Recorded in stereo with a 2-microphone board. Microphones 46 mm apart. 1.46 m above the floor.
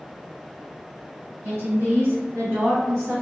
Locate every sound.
1.4 s a woman speaking: 70° right (ahead or behind), 1.6 m; by 3.2 s 60° right (ahead or behind), 0.7 m